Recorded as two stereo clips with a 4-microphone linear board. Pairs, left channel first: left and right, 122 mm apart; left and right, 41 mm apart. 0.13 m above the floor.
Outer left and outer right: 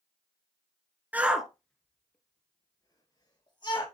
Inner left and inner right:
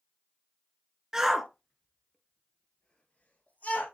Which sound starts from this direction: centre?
A shout, at 1.1 s.